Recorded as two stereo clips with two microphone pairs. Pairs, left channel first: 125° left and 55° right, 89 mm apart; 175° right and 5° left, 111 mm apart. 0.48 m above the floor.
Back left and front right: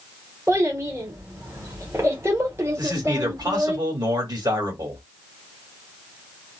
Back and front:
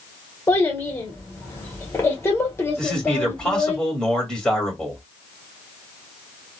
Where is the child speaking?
110° right, 1.2 m.